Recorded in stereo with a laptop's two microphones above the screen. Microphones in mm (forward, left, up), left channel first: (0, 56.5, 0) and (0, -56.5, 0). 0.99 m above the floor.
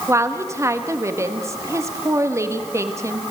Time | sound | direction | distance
0.1 | a woman speaking | 25° right (ahead or behind) | 1.5 m